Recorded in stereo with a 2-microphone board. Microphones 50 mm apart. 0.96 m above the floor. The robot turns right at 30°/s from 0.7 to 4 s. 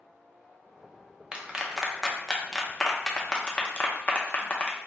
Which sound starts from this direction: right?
A clap, at 1.3 s.